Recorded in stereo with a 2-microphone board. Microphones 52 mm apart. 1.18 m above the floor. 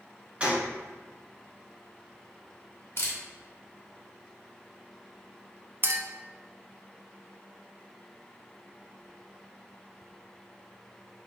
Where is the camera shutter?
50° left (ahead or behind), 1.2 m.